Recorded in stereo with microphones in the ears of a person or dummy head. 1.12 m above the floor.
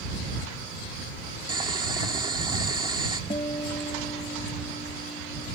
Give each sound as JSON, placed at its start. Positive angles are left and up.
{"t": 1.5, "sound": "boiling", "side_deg": -25}
{"t": 3.3, "sound": "a guitar", "side_deg": 25}